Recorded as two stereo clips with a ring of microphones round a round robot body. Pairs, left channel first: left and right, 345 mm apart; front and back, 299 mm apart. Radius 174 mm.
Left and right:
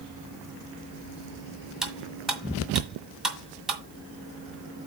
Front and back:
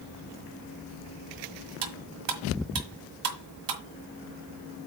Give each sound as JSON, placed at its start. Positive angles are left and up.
{"t": 1.8, "sound": "cutlery clinking", "azimuth_deg": 180, "distance_m": 1.6}